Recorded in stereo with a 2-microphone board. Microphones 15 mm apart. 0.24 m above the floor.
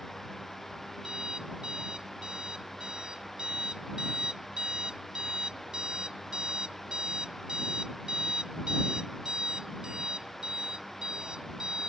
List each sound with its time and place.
1.0 s an alarm clock: 85° right